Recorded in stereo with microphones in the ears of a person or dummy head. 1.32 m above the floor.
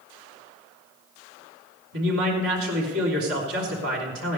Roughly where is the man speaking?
Right.